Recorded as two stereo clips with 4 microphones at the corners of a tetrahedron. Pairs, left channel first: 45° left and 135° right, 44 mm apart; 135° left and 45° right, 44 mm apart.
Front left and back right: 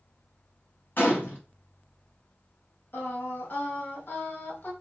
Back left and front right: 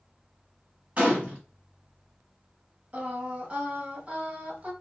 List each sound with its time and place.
1.0 s a gunshot: 10° left, 1.8 m
2.9 s singing: 10° left, 1.6 m